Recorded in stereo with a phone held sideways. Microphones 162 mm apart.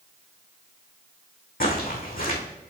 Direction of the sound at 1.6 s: 70° left (ahead or behind).